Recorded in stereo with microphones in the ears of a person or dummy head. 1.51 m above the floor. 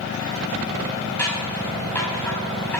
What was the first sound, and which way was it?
Scissors, 5° left (ahead or behind).